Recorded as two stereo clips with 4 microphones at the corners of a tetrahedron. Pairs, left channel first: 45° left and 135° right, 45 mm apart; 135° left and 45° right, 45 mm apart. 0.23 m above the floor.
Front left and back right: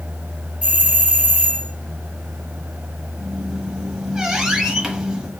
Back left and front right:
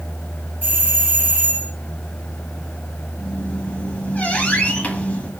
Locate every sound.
0.6 s a doorbell: 85° right, 2.5 m
3.2 s a squeak: 160° left, 1.0 m